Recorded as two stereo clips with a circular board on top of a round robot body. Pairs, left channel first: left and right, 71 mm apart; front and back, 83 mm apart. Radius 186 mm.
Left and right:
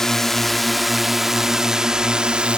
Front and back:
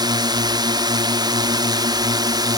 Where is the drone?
175° left; by 2.6 s 165° right.